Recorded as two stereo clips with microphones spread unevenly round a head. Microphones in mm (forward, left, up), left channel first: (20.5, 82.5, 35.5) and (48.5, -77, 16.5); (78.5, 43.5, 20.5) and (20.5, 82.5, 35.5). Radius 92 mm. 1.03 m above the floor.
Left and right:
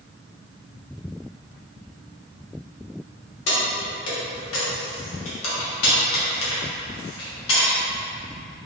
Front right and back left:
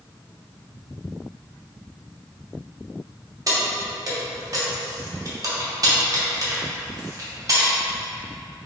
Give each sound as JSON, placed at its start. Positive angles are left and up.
{"t": 3.5, "sound": "keys jangling", "azimuth_deg": 110, "distance_m": 1.2}